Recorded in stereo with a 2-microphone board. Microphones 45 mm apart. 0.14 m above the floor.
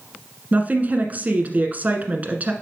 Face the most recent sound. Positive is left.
turn(degrees=-40)  # may be behind; listen again after turning